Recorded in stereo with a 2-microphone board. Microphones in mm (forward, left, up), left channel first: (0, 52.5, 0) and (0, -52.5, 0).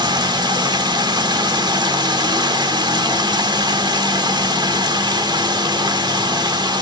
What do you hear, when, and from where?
0.0 s running water: 45° right (ahead or behind), 1.3 m